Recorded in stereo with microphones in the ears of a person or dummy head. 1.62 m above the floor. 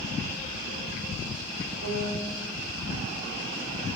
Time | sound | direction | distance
1.8 | a piano | 75° right (ahead or behind) | 1.5 m